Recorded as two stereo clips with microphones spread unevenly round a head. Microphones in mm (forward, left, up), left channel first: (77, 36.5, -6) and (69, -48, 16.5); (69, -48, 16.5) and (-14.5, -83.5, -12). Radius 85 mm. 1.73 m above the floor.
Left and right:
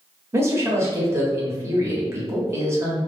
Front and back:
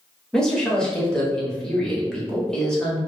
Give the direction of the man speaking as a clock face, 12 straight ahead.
2 o'clock.